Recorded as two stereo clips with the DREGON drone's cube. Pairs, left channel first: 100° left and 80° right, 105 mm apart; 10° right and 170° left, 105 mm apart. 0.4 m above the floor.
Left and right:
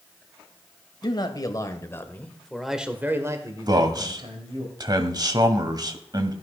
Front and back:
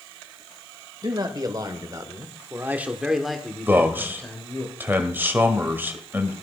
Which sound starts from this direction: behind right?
A man speaking, at 3.7 s.